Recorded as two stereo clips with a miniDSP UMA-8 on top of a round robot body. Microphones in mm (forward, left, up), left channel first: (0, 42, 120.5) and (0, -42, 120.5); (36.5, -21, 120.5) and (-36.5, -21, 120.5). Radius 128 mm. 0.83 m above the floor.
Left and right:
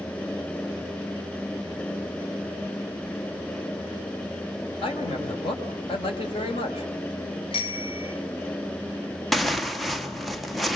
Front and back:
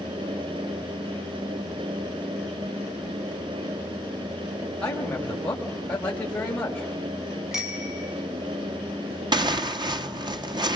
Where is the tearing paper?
Straight behind, 1.7 m.